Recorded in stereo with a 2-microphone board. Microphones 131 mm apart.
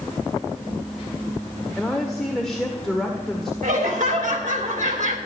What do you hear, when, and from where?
1.8 s a woman speaking: 5° left (ahead or behind), 1.5 m
3.6 s laughter: 70° right (ahead or behind), 3 m